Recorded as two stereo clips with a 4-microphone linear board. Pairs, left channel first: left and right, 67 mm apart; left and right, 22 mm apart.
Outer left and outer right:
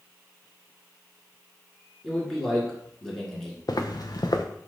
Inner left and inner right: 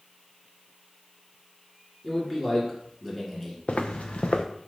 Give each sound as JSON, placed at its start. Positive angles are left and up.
{"t": 2.0, "sound": "a man speaking", "side_deg": 5, "distance_m": 1.7}
{"t": 3.7, "sound": "footsteps", "side_deg": 65, "distance_m": 0.7}